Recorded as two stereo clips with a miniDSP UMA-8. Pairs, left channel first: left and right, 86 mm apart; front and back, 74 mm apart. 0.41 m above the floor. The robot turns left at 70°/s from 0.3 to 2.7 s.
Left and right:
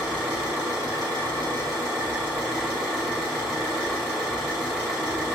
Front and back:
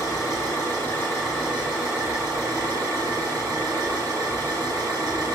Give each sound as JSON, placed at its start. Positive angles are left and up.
{"t": 0.0, "sound": "an engine running", "azimuth_deg": -10, "distance_m": 1.8}